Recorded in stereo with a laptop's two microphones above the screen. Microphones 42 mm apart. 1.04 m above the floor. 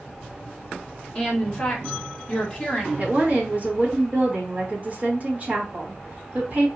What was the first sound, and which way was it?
A woman speaking, 20° left (ahead or behind).